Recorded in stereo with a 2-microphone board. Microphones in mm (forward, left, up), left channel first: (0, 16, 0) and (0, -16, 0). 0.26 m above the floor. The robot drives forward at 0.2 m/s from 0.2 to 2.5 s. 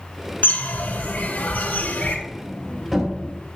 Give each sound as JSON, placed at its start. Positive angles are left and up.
{"t": 0.4, "sound": "a bird", "side_deg": 70, "distance_m": 1.9}
{"t": 2.3, "sound": "a sliding door", "side_deg": -5, "distance_m": 2.5}